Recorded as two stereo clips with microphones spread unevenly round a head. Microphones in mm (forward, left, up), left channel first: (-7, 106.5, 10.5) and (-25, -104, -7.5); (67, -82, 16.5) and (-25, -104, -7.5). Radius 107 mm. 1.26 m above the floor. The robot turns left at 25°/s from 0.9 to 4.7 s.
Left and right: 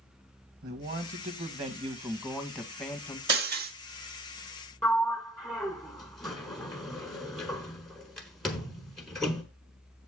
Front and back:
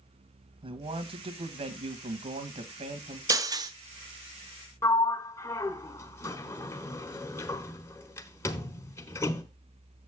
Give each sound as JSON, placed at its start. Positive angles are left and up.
{"t": 0.6, "sound": "a man speaking", "azimuth_deg": -140, "distance_m": 1.5}
{"t": 3.3, "sound": "breaking glass", "azimuth_deg": -110, "distance_m": 0.8}
{"t": 4.8, "sound": "a sliding door", "azimuth_deg": 0, "distance_m": 1.1}